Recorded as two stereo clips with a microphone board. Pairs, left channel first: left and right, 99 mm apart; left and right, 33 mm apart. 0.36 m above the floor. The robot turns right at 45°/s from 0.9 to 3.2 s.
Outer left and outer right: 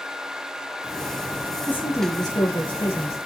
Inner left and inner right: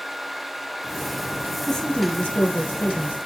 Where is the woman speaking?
15° left, 5 m; by 3.2 s 85° left, 5 m.